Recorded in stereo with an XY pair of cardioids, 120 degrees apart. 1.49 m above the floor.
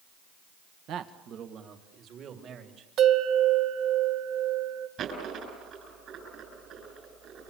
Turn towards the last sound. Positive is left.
turn(degrees=-60)